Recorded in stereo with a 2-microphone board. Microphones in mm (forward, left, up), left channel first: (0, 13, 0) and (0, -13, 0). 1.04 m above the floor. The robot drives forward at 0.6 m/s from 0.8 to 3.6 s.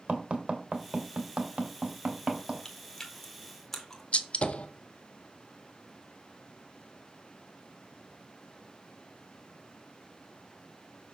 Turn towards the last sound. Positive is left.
turn(degrees=60)  # may be behind; listen again after turning